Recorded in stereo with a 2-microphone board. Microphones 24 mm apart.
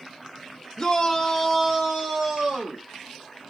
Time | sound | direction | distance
0.8 | a shout | 30° left (ahead or behind) | 1.6 m